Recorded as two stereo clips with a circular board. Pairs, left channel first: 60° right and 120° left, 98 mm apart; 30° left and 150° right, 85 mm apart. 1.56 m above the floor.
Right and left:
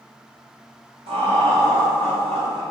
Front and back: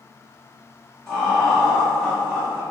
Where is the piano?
I don't hear a piano.